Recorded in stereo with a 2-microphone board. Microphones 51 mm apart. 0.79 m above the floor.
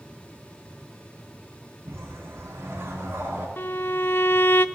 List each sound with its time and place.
1.9 s a whoosh: 55° right (ahead or behind), 5.5 m
3.6 s a violin: 45° left (ahead or behind), 0.5 m